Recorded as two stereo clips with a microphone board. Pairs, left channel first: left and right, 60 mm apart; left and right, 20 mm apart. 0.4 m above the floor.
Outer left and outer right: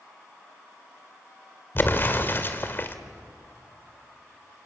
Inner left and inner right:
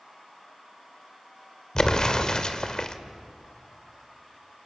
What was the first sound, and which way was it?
An explosion, 35° left (ahead or behind).